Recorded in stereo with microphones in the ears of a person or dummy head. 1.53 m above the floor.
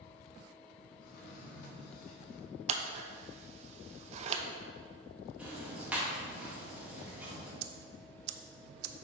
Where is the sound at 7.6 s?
60° right (ahead or behind), 0.5 m.